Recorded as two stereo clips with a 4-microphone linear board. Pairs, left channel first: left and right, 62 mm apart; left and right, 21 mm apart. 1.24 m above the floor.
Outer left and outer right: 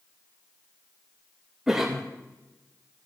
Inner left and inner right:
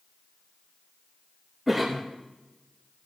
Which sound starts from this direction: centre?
A cough, at 1.7 s.